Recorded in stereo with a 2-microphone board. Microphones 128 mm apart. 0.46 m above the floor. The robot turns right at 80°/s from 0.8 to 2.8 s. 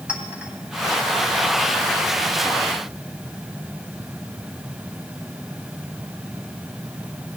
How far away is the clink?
About 2 m.